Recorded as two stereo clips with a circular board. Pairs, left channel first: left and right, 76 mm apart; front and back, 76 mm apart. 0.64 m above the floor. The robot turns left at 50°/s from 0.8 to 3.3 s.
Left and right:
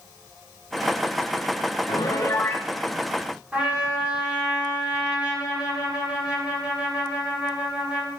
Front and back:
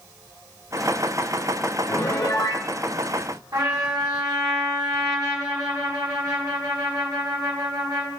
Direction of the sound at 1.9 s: 60° left.